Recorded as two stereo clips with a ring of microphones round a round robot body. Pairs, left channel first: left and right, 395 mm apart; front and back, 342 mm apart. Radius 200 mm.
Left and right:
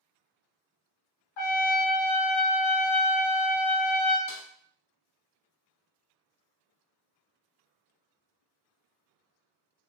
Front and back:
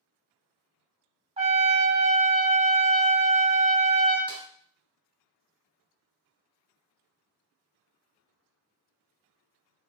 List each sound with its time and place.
1.4 s a trumpet: 105° left, 0.8 m
4.3 s a snare drum: 95° left, 1.0 m